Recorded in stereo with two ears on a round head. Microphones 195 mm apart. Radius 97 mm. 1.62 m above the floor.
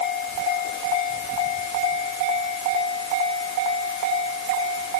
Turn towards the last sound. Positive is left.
No sound to turn to.